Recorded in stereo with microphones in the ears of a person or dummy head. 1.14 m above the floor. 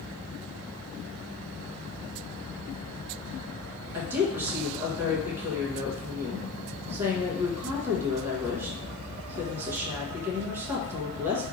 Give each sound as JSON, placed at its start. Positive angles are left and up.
{"t": 3.9, "sound": "a woman speaking", "side_deg": -10, "distance_m": 0.7}